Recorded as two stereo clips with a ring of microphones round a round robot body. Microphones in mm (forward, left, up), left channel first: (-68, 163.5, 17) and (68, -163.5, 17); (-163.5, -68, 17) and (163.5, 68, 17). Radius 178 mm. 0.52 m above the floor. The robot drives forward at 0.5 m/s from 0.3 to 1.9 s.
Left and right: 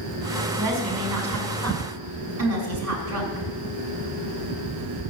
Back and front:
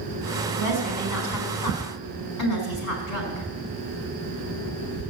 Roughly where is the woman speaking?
Right.